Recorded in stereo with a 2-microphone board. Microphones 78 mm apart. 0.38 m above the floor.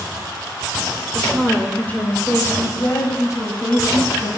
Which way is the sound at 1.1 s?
5° left (ahead or behind).